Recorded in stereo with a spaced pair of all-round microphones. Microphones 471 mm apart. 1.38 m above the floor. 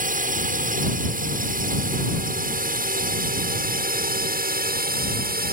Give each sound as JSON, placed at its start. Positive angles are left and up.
{"t": 0.0, "sound": "a drone", "side_deg": -15}